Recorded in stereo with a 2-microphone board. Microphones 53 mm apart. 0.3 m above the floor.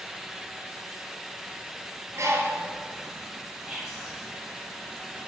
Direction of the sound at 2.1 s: 70° right (ahead or behind).